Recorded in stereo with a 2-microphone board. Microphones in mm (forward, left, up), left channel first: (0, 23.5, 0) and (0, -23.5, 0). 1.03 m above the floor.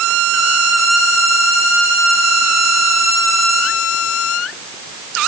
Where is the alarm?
No alarm in this recording.